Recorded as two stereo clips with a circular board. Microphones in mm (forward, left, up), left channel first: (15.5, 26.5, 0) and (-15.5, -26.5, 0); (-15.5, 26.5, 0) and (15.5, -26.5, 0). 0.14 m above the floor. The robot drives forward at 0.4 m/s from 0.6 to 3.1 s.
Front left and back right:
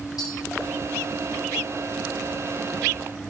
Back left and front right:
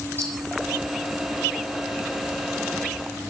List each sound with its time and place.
0.2 s tapping: 60° left, 10 m